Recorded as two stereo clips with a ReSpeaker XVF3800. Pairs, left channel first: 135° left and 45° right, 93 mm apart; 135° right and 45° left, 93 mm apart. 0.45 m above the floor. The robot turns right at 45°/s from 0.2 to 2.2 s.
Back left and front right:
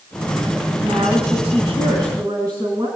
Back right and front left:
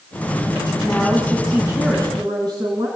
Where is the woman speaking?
60° right, 4 m; by 2.9 s straight ahead, 4 m.